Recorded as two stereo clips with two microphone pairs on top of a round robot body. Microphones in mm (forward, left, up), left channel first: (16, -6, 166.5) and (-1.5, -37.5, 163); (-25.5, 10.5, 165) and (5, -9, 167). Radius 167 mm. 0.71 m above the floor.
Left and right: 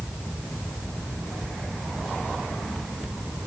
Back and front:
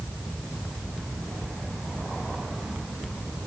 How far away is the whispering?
No whispering in this recording.